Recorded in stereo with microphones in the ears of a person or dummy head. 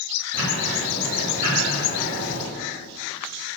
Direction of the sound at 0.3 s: 80° right.